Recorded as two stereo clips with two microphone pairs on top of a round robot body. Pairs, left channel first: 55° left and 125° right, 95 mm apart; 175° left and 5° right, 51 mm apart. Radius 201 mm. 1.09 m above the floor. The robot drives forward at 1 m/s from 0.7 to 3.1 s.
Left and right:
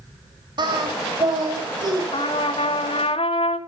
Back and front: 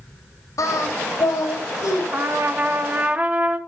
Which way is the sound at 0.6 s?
165° right.